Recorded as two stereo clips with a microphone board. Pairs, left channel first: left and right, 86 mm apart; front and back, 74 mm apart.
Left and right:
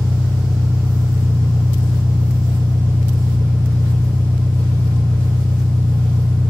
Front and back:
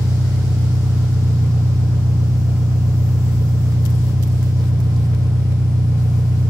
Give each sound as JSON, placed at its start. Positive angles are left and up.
{"t": 0.0, "sound": "an engine running", "azimuth_deg": 160, "distance_m": 2.0}